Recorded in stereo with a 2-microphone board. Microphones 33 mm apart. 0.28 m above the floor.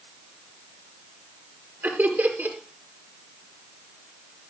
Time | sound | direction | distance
1.8 | laughter | 70° right (ahead or behind) | 5 m